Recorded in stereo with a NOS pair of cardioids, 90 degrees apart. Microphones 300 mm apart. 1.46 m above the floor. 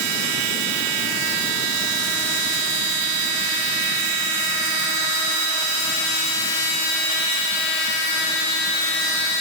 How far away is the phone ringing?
I don't hear a phone ringing.